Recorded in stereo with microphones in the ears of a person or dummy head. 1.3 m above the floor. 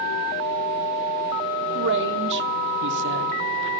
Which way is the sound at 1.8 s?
60° right (ahead or behind).